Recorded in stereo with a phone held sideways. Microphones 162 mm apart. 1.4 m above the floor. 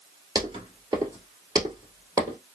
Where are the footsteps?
25° right (ahead or behind), 1.5 m; by 2.4 s 20° right (ahead or behind), 1.8 m.